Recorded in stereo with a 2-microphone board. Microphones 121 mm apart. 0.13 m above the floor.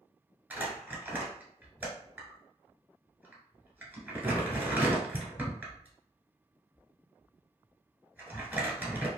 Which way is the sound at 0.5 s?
15° right (ahead or behind).